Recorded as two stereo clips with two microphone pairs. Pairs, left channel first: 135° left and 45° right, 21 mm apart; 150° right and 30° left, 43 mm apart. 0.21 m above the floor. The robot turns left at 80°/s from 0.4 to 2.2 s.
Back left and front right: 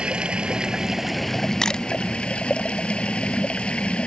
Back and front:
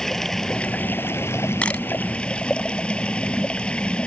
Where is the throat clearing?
No throat clearing in this recording.